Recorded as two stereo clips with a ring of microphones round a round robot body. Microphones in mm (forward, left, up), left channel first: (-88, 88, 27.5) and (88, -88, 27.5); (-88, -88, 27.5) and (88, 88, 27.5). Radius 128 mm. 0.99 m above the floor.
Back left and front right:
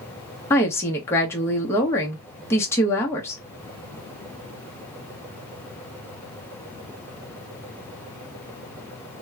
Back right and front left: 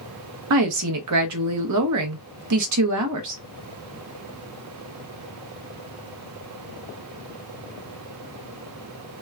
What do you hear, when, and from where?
0.5 s a woman speaking: 55° left, 0.9 m